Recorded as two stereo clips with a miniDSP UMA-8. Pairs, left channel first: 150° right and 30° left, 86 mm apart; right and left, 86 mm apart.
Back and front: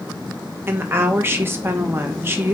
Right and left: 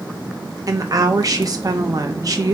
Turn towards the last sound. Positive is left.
turn(degrees=80)